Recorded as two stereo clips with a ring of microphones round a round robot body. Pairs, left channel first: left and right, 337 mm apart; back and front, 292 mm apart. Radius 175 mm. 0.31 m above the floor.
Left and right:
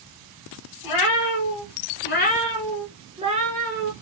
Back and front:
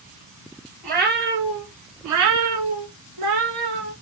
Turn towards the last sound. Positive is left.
turn(degrees=-30)